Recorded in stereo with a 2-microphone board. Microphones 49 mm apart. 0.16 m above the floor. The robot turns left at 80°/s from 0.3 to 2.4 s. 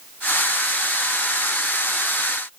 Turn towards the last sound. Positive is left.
No sound to turn to.